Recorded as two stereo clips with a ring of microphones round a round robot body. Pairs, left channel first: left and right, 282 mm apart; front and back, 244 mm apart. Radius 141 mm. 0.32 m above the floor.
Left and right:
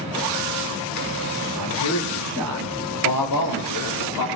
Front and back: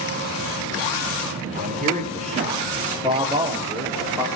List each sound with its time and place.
1.6 s a man speaking: 125° left, 5.5 m; by 4.3 s 100° left, 6.5 m